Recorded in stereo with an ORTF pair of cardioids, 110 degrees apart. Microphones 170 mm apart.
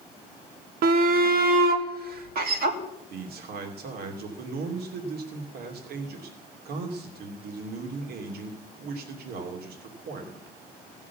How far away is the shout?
About 1.4 m.